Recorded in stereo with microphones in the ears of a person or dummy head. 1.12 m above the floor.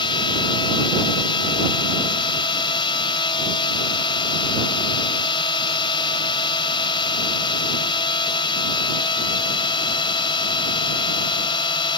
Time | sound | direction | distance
0.0 | a drone | 20° left (ahead or behind) | ?